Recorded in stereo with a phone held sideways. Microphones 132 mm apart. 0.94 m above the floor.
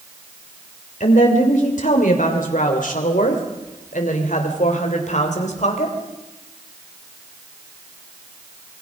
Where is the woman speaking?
75° left (ahead or behind), 3.5 m; by 6.0 s 60° left (ahead or behind), 4 m.